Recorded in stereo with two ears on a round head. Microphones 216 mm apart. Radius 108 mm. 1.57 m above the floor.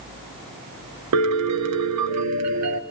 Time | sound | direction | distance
1.1 | a piano | 75° right (ahead or behind) | 1.6 m